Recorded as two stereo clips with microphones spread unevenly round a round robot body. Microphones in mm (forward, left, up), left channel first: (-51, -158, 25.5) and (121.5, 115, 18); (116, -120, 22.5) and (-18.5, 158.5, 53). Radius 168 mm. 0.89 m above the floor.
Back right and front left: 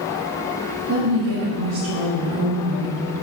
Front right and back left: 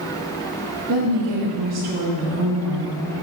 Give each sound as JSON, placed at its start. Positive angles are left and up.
{"t": 0.9, "sound": "a woman speaking", "azimuth_deg": 100, "distance_m": 1.7}